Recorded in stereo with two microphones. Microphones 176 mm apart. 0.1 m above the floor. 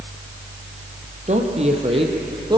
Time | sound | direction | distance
1.3 | a woman speaking | 40° right (ahead or behind) | 3 m